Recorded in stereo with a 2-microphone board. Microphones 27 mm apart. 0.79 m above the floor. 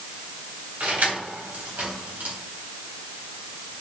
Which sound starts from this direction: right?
Keys jangling, at 0.8 s.